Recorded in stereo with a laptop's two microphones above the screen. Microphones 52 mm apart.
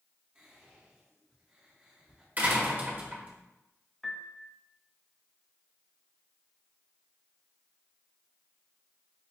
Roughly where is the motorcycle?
No motorcycle in this recording.